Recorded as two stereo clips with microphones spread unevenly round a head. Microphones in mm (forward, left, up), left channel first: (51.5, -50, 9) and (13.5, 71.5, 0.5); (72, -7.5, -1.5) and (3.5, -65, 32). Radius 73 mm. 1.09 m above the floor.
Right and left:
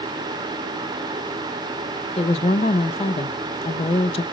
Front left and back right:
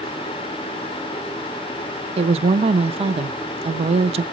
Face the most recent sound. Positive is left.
turn(degrees=-125)